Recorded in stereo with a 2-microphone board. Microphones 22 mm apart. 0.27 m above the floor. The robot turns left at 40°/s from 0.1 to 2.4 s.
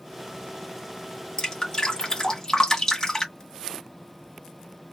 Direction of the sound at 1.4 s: 30° left (ahead or behind).